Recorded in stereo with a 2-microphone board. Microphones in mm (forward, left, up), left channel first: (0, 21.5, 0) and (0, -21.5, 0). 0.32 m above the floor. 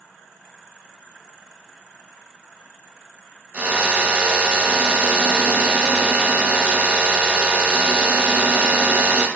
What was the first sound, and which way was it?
A drill, 30° right (ahead or behind).